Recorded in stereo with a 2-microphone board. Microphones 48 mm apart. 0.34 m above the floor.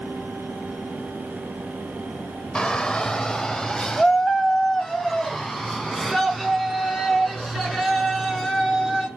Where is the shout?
20° left (ahead or behind), 1.2 m; by 9.1 s centre (ahead or behind), 4.5 m.